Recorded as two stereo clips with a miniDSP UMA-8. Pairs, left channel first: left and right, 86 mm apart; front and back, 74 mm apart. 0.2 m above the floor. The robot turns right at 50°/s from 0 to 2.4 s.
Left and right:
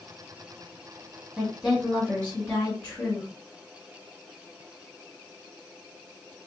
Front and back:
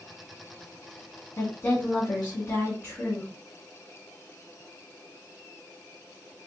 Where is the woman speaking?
10° right, 1.5 m; by 3.3 s 40° left, 1.5 m.